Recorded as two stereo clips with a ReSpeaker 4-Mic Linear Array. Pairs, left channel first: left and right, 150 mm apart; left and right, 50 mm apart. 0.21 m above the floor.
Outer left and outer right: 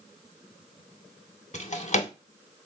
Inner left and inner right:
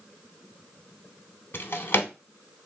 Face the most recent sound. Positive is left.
turn(degrees=50)  # may be behind; listen again after turning